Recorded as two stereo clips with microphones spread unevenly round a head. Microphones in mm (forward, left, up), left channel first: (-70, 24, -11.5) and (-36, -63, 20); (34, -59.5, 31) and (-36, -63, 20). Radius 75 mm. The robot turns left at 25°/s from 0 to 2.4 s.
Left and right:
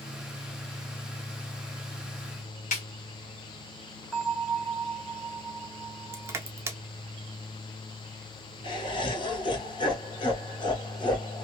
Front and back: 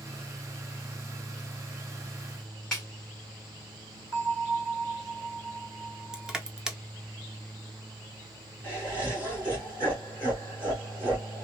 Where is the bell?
150° right, 1.2 m.